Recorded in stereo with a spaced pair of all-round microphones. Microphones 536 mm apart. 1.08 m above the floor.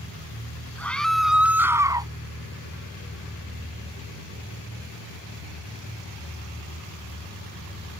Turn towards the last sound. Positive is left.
turn(degrees=-10)  # may be behind; listen again after turning